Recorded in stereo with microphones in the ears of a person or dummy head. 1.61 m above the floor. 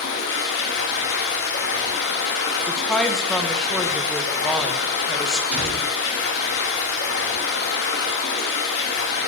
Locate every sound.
0.0 s running water: 70° left (ahead or behind), 1.8 m
2.7 s a woman speaking: 5° left (ahead or behind), 1.1 m
5.5 s a door slam: 5° right (ahead or behind), 5.5 m